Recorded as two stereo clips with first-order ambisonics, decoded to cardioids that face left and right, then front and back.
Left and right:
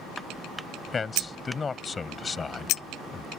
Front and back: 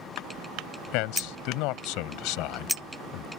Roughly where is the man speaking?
Ahead.